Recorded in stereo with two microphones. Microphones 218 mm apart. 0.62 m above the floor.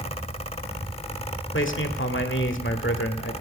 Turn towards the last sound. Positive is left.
turn(degrees=65)  # may be behind; listen again after turning